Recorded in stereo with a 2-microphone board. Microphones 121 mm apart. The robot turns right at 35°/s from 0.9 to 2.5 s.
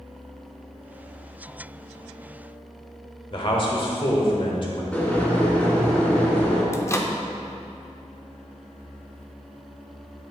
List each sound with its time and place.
3.3 s a man speaking: 45° left (ahead or behind), 1.3 m
4.9 s boiling: 10° left (ahead or behind), 1.9 m
6.7 s a microwave: 25° left (ahead or behind), 0.5 m